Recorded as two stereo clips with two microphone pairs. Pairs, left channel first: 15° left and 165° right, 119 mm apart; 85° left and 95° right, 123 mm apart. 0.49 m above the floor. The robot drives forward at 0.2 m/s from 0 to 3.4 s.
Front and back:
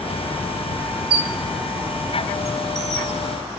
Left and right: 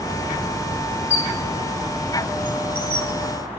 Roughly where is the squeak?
Behind left.